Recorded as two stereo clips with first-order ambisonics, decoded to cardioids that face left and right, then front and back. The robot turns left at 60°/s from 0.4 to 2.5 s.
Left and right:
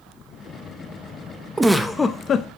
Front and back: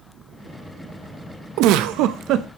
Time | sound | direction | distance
1.6 | a giggle | 170° right | 0.6 m